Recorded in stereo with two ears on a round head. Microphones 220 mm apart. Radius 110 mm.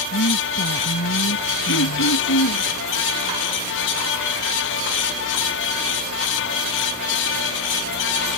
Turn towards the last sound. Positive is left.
turn(degrees=50)  # may be behind; listen again after turning